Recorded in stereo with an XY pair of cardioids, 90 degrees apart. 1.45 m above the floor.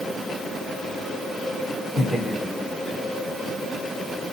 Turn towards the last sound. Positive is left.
turn(degrees=15)